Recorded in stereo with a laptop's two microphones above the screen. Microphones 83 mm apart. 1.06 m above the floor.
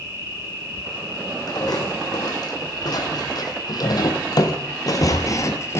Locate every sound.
0.0 s an insect: 30° right (ahead or behind), 8.5 m
1.5 s footsteps: 50° left (ahead or behind), 3.5 m; by 5.8 s 30° left (ahead or behind), 1.2 m